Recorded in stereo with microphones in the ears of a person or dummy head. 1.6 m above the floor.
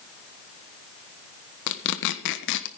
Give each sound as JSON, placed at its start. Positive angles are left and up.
{"t": 1.7, "sound": "tearing paper", "side_deg": 70, "distance_m": 1.0}